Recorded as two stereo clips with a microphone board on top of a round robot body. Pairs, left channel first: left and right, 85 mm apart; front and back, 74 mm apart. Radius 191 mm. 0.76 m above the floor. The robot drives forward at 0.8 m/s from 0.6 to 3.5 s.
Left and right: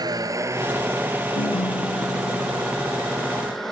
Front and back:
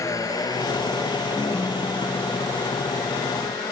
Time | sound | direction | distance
0.0 | a vehicle | 45° right | ?
1.4 | a ringtone | 70° left | ?